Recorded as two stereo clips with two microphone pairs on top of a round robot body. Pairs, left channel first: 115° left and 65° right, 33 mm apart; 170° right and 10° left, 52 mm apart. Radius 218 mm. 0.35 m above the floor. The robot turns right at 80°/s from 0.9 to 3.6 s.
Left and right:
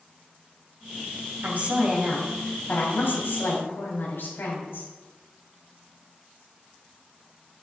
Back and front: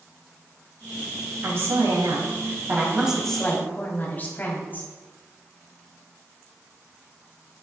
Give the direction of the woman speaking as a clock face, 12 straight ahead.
1 o'clock.